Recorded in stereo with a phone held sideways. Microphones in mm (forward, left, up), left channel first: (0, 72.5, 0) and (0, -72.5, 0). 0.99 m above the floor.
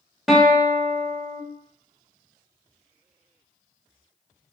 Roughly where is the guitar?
Centre.